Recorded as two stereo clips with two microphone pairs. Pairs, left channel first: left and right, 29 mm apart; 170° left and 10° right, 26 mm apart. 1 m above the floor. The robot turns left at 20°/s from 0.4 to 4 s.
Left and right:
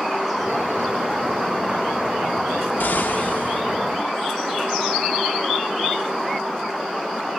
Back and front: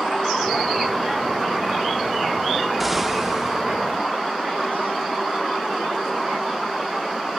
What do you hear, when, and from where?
2.8 s an explosion: 80° left, 0.6 m; by 3.6 s 65° left, 0.6 m